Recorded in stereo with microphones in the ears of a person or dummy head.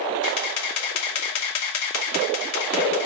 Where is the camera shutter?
80° left, 2.5 m.